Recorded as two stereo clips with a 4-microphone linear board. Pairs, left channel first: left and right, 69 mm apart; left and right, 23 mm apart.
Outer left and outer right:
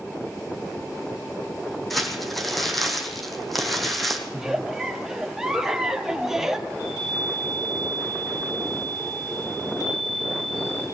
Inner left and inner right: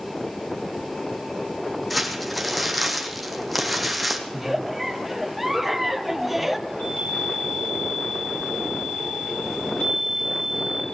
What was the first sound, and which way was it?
Crumpling, centre (ahead or behind).